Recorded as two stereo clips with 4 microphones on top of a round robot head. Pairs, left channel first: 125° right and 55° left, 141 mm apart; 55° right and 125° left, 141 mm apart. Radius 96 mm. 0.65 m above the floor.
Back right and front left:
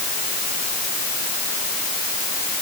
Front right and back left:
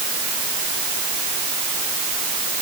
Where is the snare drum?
No snare drum in this recording.